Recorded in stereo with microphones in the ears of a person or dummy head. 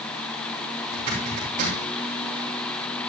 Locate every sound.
0.9 s a zipper: 40° right (ahead or behind), 5 m